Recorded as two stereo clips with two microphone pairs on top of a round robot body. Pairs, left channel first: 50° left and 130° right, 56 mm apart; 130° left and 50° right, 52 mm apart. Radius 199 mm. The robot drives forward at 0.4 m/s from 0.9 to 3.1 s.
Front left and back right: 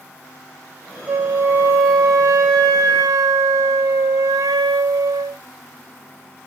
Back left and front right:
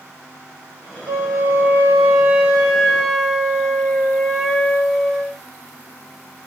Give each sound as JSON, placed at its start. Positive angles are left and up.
{"t": 1.1, "sound": "a flute", "azimuth_deg": -70, "distance_m": 0.5}